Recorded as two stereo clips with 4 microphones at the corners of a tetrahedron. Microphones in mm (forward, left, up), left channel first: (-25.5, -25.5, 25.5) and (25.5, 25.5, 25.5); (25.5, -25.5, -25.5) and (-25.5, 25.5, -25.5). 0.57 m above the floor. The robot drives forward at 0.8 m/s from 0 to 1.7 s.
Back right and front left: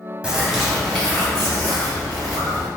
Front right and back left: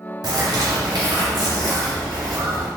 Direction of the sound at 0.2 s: 120° left.